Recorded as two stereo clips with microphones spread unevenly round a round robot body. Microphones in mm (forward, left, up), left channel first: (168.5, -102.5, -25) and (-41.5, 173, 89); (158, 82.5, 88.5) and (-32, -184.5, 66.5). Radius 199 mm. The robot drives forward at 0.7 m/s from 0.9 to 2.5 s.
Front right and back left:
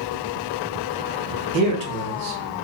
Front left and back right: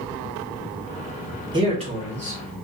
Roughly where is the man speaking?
Behind.